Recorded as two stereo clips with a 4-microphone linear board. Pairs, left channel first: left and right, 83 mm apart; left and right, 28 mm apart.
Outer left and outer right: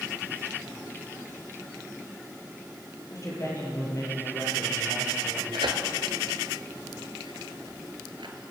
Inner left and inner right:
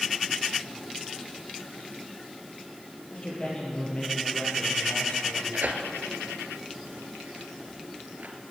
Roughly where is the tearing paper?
Right.